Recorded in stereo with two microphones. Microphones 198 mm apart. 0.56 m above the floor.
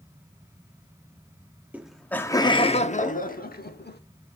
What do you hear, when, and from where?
1.7 s laughter: 5° right (ahead or behind), 0.8 m; by 4.0 s 55° left (ahead or behind), 1.4 m